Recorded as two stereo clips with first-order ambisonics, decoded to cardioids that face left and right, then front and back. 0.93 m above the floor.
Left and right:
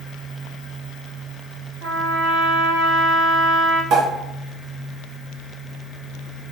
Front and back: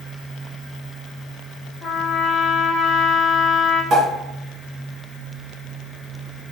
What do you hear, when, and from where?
1.8 s a trumpet: 85° right, 1.4 m
3.9 s a pop: 125° right, 2 m